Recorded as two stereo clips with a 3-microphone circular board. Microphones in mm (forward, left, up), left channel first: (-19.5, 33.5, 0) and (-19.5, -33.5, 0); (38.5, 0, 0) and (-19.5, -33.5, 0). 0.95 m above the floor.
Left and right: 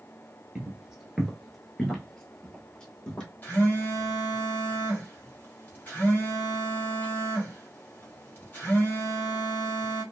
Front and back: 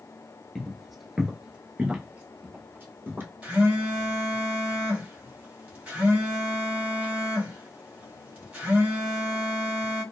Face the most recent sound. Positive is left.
turn(degrees=145)